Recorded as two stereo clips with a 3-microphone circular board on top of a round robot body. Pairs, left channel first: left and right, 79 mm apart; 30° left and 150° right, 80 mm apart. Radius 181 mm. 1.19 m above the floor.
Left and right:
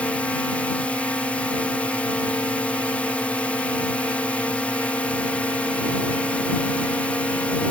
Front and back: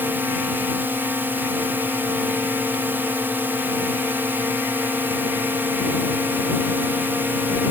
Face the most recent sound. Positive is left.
turn(degrees=155)